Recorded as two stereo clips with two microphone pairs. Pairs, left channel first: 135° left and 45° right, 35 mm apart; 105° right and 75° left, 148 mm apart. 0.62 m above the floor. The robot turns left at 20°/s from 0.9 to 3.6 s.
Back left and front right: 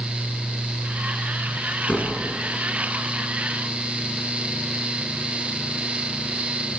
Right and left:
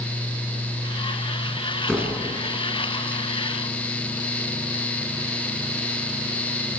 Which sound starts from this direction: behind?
A door slam, at 1.9 s.